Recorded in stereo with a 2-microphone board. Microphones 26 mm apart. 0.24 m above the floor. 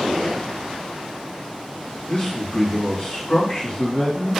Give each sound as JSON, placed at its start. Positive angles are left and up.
{"t": 2.1, "sound": "a man speaking", "side_deg": 55, "distance_m": 2.0}